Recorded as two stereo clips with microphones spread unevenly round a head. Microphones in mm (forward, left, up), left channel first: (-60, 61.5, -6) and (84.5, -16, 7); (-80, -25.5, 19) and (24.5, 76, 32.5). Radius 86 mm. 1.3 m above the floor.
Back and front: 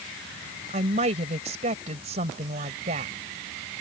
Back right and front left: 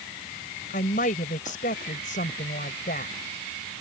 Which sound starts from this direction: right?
A woman speaking, at 0.7 s.